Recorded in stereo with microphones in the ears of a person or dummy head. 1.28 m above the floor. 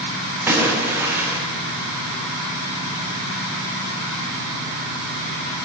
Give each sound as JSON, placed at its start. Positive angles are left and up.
{"t": 0.5, "sound": "a splash", "side_deg": -10, "distance_m": 0.8}